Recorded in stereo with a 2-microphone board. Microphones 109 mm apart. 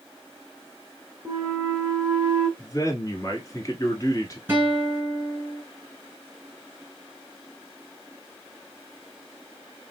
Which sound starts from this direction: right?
A flute, at 1.2 s.